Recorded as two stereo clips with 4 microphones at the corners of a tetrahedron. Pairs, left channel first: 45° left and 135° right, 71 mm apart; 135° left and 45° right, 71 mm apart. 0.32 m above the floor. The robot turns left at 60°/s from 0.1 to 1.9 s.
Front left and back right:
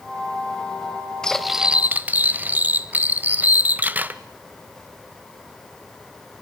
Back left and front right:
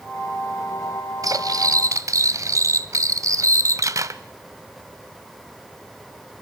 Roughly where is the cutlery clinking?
Ahead right.